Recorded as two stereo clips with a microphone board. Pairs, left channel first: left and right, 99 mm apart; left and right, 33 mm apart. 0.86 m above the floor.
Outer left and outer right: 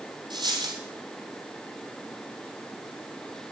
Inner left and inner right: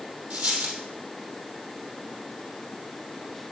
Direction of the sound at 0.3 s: 50° right (ahead or behind).